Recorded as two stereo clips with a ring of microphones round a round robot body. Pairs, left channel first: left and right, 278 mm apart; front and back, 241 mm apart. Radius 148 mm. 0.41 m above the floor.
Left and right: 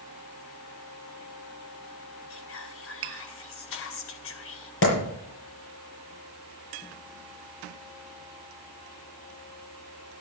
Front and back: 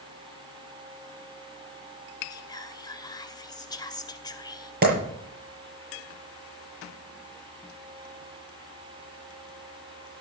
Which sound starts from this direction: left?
Whispering, at 2.3 s.